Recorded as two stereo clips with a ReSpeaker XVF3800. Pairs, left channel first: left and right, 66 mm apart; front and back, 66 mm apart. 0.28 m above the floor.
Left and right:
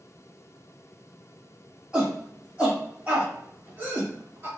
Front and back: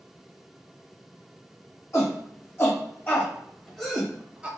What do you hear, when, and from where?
1.9 s a shout: 15° right, 1.5 m; by 4.5 s 115° right, 1.1 m